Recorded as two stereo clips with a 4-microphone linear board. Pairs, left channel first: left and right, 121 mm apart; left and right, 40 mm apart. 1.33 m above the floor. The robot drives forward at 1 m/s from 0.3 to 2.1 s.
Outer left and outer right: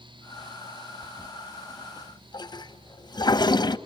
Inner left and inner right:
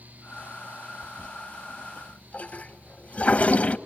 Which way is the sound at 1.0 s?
15° left (ahead or behind).